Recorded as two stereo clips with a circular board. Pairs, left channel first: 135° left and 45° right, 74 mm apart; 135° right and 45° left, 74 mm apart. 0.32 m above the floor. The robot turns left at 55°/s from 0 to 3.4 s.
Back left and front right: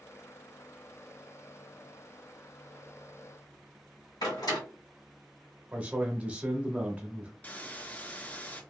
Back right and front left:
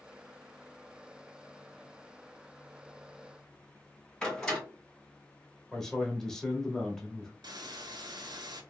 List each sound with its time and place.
4.2 s a door slam: 140° left, 2.0 m
5.7 s a man speaking: 65° right, 0.9 m
7.4 s a hiss: 65° left, 0.6 m